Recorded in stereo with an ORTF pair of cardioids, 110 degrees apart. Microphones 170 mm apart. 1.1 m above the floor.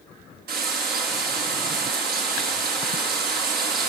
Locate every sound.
0.5 s frying: 65° right, 7.5 m